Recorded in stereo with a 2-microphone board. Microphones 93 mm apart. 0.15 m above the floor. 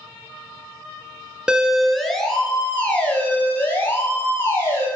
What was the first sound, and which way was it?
A siren, 10° right (ahead or behind).